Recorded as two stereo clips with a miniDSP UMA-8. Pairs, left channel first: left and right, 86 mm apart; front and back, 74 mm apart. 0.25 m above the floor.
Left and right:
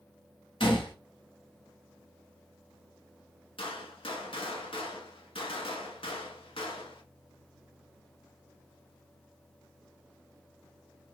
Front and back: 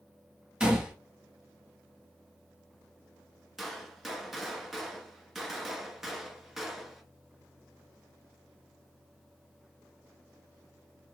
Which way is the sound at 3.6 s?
95° left.